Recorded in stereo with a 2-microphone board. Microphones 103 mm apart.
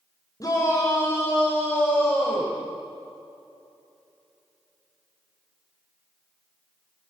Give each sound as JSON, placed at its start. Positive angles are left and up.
{"t": 0.4, "sound": "a shout", "side_deg": 35, "distance_m": 4.0}